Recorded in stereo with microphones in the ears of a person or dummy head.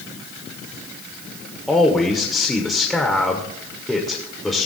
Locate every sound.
1.7 s a man speaking: centre (ahead or behind), 0.9 m